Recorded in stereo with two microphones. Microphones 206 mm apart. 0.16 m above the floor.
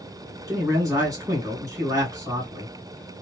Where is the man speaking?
15° right (ahead or behind), 1.8 m.